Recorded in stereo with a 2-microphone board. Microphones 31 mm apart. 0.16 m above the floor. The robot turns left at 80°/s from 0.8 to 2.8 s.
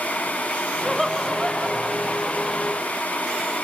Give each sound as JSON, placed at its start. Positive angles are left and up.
{"t": 0.8, "sound": "laughter", "side_deg": 5, "distance_m": 1.2}